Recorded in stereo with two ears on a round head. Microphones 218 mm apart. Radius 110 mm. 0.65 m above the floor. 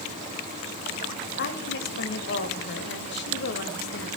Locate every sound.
1.4 s a woman speaking: 45° left (ahead or behind), 3 m